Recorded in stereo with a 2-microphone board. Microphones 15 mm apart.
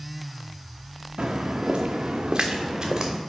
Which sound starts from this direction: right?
Footsteps, at 1.2 s.